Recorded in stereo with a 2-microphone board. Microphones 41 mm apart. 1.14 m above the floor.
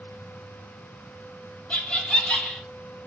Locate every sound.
1.7 s laughter: 25° left (ahead or behind), 0.9 m